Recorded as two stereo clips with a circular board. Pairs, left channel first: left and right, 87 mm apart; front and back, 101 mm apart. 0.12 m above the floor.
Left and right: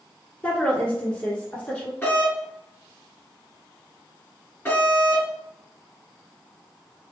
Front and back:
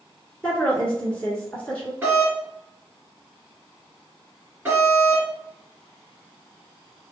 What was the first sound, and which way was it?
A woman speaking, 45° left.